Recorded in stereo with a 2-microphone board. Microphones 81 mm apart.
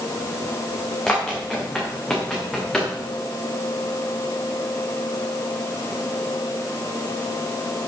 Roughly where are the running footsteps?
Centre.